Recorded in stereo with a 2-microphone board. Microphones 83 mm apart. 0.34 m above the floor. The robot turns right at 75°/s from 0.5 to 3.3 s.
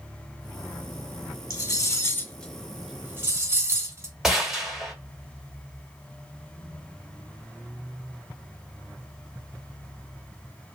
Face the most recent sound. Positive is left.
turn(degrees=-5)  # may be behind; listen again after turning